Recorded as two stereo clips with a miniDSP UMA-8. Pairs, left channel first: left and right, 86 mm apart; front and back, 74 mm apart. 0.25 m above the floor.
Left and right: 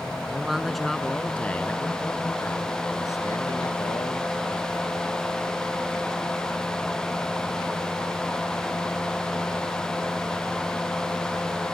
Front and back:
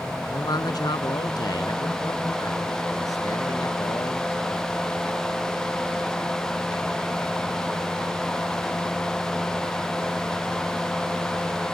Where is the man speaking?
10° right; by 4.7 s 50° left.